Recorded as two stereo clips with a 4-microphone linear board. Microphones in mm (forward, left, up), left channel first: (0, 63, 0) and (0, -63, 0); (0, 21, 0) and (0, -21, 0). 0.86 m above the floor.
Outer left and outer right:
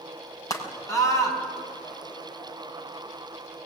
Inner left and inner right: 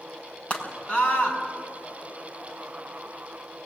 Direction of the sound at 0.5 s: 25° left (ahead or behind).